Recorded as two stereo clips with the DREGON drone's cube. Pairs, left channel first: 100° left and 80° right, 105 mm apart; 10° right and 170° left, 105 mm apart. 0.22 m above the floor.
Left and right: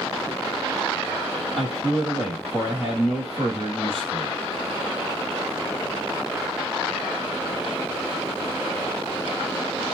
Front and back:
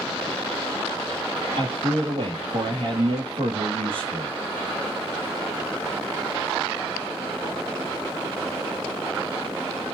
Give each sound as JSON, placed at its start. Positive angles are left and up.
{"t": 1.6, "sound": "a man speaking", "azimuth_deg": -170, "distance_m": 4.5}